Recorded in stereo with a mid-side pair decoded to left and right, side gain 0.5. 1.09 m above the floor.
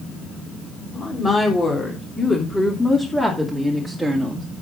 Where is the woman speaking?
30° left, 3.5 m; by 4.5 s 10° right, 2.5 m.